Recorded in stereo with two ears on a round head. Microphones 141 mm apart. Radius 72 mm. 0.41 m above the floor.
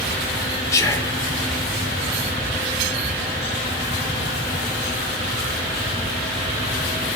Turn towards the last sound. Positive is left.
turn(degrees=20)  # may be behind; listen again after turning